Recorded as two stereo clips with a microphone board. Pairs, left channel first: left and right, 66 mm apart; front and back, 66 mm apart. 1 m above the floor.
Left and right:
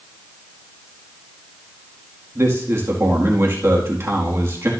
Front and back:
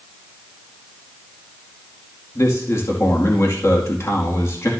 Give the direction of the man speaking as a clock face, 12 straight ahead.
1 o'clock.